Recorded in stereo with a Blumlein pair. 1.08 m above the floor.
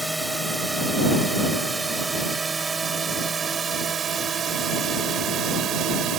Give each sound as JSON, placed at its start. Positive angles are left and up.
{"t": 0.0, "sound": "a drone", "azimuth_deg": -5}